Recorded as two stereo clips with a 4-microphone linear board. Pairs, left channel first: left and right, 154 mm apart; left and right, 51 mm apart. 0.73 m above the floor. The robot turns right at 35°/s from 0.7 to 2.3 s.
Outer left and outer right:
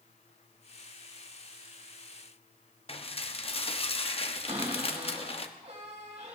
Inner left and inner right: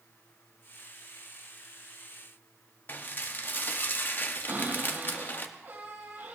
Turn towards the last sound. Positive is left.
turn(degrees=-45)  # may be behind; listen again after turning